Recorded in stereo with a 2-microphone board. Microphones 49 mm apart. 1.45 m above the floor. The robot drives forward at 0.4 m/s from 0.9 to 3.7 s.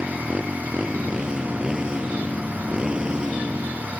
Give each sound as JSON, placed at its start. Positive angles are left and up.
{"t": 0.0, "sound": "a motorcycle", "side_deg": -15}